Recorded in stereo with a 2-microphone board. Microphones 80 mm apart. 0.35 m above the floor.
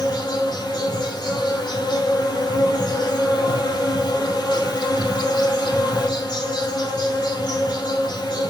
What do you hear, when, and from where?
0.0 s an insect: 60° left (ahead or behind), 3 m